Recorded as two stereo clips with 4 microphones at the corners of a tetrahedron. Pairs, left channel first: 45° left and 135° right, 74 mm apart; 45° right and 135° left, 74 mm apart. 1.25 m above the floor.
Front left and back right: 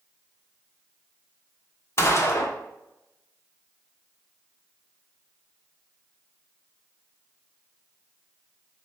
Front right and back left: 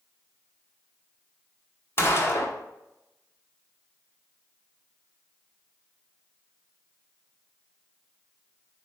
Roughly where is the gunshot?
Ahead.